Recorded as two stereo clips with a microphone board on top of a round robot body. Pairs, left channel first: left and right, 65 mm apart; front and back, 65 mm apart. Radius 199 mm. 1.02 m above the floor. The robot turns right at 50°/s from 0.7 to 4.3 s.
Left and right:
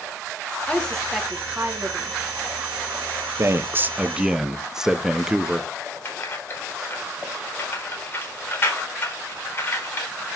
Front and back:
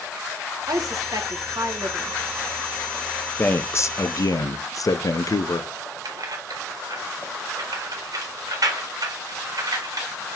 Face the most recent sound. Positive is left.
turn(degrees=145)